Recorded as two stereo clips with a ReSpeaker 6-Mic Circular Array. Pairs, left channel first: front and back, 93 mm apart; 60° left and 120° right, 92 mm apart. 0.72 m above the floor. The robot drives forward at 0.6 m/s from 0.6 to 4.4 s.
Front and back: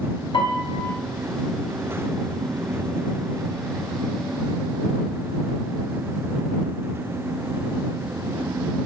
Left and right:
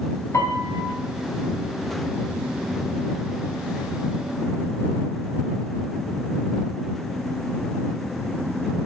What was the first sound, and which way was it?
A piano, 5° left.